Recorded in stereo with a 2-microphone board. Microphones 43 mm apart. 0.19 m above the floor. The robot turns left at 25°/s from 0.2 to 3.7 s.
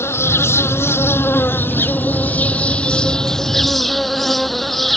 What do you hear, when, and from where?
0.0 s an insect: 95° left; by 5.0 s 5° left